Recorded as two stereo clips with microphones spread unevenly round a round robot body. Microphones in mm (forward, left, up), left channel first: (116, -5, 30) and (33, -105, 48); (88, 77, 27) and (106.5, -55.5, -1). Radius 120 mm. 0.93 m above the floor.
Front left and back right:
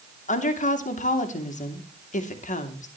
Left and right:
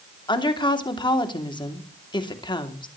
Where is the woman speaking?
40° left, 2.5 m.